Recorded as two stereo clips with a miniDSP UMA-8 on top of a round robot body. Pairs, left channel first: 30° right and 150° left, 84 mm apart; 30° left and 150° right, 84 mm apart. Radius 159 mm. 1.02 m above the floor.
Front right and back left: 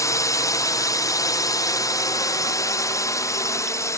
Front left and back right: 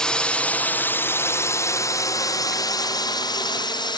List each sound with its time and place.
0.0 s a drone: 45° right; by 4.0 s 20° left